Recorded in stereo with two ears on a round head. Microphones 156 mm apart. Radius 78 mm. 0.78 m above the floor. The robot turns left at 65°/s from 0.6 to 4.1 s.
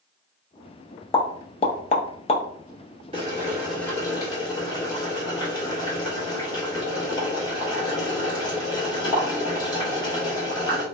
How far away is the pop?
About 0.5 m.